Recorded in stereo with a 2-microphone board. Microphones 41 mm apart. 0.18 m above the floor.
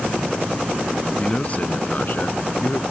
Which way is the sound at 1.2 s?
25° left (ahead or behind).